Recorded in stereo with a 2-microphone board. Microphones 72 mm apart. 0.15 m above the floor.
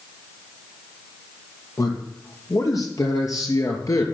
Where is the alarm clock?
I don't hear an alarm clock.